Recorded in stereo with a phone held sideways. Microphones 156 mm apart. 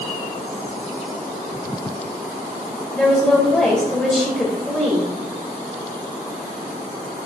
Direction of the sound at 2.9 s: 10° left (ahead or behind).